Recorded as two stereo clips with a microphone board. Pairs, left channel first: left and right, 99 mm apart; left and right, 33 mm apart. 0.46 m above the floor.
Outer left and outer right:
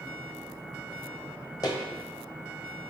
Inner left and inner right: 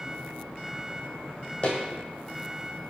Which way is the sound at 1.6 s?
40° left (ahead or behind).